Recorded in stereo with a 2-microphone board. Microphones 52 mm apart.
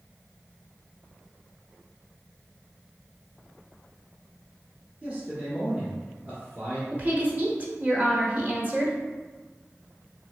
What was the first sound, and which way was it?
A man speaking, 30° right (ahead or behind).